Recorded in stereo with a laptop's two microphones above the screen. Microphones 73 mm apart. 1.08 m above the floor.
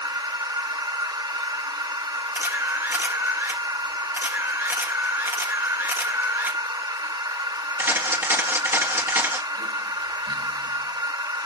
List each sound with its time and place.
0.0 s a machine running: 85° right, 0.9 m
2.4 s a camera shutter: 35° right (ahead or behind), 1.1 m